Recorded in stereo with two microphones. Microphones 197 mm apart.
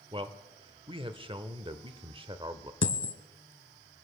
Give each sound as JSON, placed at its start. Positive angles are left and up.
{"t": 0.1, "sound": "a man speaking", "side_deg": -25, "distance_m": 0.9}
{"t": 2.8, "sound": "a dropped coin", "side_deg": 75, "distance_m": 0.8}